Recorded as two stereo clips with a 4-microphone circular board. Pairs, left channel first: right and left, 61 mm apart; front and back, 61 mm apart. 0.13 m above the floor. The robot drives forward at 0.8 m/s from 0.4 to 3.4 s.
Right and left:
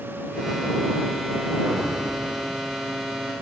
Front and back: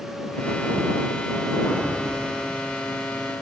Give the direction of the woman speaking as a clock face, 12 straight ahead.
I don't hear a woman speaking.